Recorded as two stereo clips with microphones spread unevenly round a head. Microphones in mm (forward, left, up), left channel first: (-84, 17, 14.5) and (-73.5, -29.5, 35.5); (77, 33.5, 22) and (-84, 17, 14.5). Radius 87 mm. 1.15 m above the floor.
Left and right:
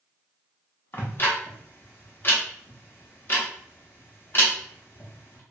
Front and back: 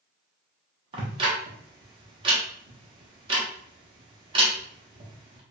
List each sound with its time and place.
0.9 s ticking: 155° left, 0.7 m